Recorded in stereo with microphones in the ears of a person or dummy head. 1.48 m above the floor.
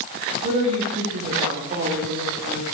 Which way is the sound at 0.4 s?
45° right (ahead or behind).